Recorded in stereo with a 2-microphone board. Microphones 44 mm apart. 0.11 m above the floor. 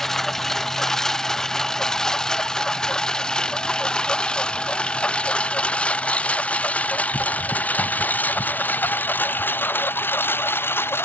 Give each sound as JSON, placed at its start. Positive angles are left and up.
{"t": 0.0, "sound": "a lawn mower", "side_deg": 10}